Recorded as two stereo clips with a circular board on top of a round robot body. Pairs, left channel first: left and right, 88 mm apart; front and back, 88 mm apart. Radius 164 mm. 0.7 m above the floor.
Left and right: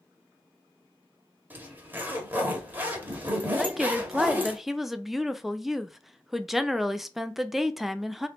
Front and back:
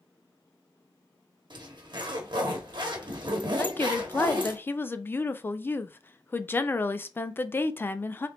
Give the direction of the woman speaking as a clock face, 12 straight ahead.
12 o'clock.